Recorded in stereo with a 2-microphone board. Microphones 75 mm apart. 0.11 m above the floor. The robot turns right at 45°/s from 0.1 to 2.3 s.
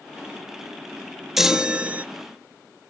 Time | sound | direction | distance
1.4 | a chime | 175° right | 0.6 m